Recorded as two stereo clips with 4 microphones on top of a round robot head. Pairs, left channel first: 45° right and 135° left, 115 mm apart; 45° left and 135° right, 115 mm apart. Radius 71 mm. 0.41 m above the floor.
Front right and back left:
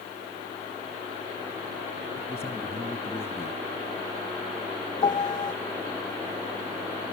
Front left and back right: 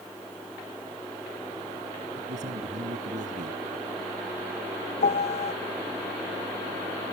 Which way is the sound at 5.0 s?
10° left.